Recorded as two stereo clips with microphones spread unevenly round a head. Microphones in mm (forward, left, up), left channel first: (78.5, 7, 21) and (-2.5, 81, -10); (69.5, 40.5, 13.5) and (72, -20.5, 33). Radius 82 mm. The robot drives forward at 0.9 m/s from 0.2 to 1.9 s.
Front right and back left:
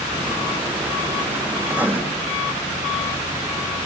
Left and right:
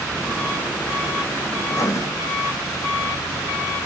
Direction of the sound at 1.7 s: 50° left.